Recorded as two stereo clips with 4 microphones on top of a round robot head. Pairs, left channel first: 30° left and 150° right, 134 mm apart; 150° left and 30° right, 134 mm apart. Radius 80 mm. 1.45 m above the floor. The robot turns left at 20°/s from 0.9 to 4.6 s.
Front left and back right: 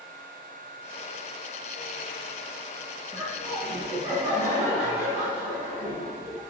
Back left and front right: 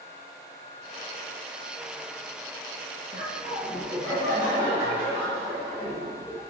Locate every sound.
3.1 s laughter: 75° right, 2 m; by 6.4 s 105° right, 2 m